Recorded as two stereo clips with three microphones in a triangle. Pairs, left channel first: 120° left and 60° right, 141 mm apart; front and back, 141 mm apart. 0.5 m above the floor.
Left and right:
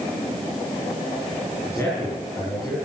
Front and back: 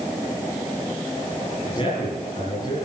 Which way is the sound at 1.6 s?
50° left.